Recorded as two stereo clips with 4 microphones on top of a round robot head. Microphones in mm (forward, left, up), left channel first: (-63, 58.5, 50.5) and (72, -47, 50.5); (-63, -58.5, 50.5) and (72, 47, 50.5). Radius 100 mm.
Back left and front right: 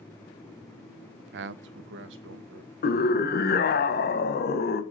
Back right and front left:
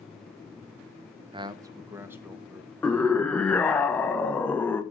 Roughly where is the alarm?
No alarm in this recording.